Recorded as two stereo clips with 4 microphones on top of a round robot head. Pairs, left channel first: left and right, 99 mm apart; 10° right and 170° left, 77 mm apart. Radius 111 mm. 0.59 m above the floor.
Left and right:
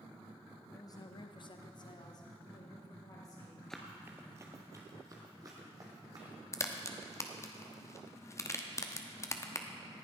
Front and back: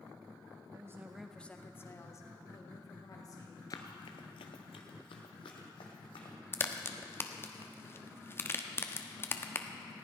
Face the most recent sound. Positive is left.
turn(degrees=40)